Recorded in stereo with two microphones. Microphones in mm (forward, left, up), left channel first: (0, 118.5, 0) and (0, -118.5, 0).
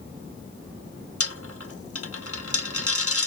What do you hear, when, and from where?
1.2 s a dropped coin: 70° left (ahead or behind), 0.6 m